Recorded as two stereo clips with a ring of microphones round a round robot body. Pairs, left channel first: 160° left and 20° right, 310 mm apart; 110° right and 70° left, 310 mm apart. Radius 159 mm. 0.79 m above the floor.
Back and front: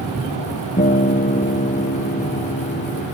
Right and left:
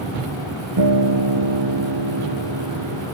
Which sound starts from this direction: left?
A guitar, at 0.8 s.